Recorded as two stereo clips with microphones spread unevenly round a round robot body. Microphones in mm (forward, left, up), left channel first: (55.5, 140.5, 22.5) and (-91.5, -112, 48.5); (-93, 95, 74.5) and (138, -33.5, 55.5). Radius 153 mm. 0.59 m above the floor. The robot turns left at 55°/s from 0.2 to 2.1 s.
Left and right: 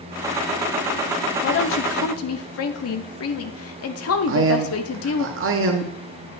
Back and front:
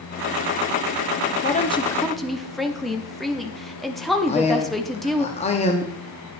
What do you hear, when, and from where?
1.4 s a woman speaking: 95° left, 0.8 m; by 5.3 s 60° left, 0.8 m
4.3 s a man speaking: 150° right, 0.9 m